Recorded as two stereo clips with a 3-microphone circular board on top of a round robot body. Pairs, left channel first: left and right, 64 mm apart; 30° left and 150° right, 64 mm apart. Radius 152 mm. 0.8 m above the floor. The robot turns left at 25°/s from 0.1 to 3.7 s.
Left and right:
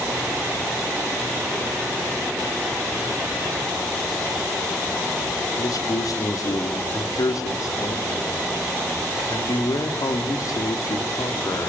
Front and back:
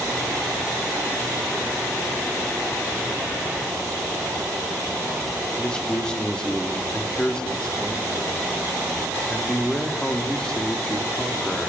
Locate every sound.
5.6 s a man speaking: 105° left, 3 m